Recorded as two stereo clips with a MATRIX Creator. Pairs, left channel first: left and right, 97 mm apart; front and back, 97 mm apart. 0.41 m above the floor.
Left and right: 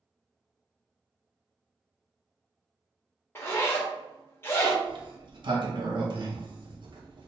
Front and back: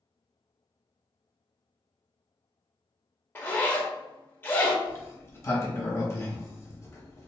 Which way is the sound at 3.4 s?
50° left.